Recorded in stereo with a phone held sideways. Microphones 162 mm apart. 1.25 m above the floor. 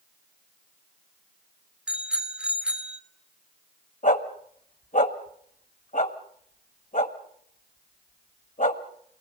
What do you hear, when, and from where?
1.9 s a bicycle bell: 5° right (ahead or behind), 2.5 m
4.0 s a dog barking: 55° left (ahead or behind), 1.7 m